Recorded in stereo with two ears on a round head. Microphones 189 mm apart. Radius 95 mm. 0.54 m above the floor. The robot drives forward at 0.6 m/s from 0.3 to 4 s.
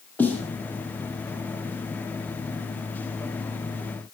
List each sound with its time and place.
0.2 s a snare drum: 10° left (ahead or behind), 5 m